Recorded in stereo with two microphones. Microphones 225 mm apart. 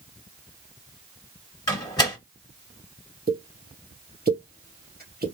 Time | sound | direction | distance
1.7 | a door slam | 20° left (ahead or behind) | 1.5 m
3.3 | a pop | 45° right (ahead or behind) | 1.2 m